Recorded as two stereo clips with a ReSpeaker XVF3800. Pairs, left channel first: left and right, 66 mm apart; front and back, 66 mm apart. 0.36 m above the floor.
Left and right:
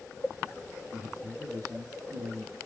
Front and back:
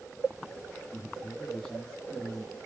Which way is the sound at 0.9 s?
80° right.